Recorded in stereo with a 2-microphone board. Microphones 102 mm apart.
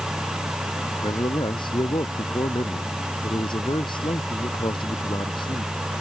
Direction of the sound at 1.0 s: 50° left (ahead or behind).